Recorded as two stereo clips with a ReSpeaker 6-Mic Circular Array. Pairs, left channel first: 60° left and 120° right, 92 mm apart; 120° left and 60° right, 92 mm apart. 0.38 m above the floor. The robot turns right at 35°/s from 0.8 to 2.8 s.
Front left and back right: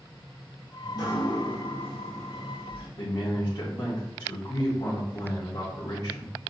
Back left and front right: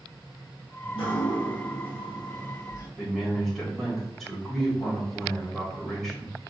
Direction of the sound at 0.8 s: 100° left.